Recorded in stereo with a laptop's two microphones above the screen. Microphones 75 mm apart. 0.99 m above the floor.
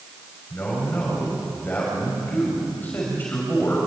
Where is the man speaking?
25° left (ahead or behind), 6.5 m.